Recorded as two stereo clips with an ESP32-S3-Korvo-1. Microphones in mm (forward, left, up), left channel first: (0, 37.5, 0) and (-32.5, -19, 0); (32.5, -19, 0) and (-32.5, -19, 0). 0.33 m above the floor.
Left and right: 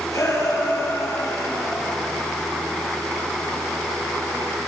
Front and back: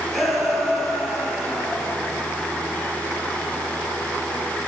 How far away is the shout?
About 8.5 m.